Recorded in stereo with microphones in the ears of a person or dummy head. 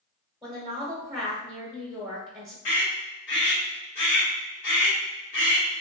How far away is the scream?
About 1.4 m.